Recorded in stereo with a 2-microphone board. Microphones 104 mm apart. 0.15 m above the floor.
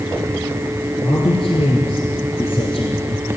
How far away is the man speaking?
About 3.5 m.